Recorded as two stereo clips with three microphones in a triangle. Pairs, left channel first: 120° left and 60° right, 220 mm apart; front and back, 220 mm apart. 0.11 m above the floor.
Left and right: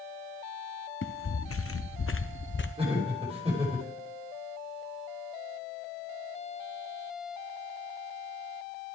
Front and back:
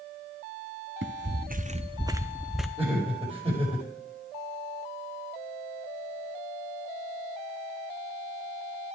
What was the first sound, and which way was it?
Footsteps, 145° left.